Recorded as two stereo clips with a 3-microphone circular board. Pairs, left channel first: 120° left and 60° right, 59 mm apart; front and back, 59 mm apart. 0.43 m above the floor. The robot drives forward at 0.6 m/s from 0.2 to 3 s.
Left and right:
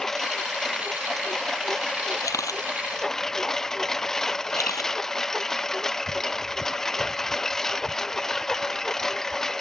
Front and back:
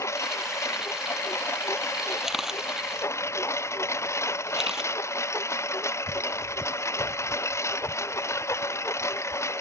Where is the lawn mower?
35° left.